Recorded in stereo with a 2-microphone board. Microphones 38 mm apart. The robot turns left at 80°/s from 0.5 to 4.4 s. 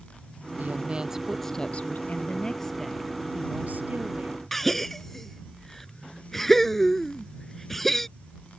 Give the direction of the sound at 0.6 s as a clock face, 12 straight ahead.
4 o'clock.